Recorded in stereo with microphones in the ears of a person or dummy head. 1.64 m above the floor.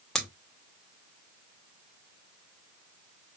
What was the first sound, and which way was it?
Scissors, 5° left (ahead or behind).